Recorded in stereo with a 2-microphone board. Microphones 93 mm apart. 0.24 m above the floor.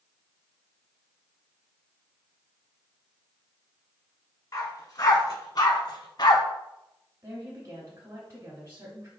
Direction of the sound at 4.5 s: 40° left (ahead or behind).